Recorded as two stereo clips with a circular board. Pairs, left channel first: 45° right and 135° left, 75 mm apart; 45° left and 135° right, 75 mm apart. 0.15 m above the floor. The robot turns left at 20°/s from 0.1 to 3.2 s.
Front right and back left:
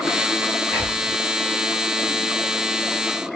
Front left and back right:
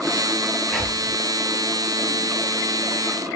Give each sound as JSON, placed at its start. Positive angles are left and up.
{"t": 0.7, "sound": "whispering", "azimuth_deg": 130, "distance_m": 1.5}